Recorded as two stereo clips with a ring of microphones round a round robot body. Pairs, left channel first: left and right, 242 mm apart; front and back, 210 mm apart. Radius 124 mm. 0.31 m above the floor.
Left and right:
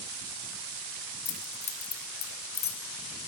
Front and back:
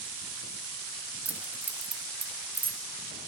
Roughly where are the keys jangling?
Left.